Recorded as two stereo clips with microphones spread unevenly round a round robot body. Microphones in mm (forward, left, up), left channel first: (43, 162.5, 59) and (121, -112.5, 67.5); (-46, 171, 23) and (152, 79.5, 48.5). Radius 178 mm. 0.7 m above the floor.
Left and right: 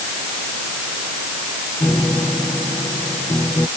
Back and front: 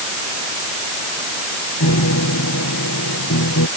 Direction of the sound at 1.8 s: 170° right.